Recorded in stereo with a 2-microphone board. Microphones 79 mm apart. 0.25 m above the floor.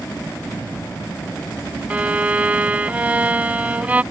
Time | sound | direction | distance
1.9 | a violin | 20° right (ahead or behind) | ?